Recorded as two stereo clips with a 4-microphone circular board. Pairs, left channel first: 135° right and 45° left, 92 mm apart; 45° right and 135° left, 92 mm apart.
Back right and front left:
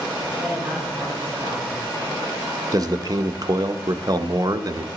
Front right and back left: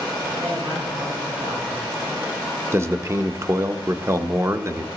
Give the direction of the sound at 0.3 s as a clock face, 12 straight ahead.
8 o'clock.